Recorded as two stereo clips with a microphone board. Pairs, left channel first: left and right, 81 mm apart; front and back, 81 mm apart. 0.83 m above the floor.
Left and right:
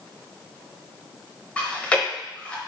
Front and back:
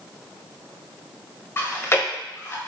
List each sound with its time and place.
1.6 s chewing: 25° left, 0.7 m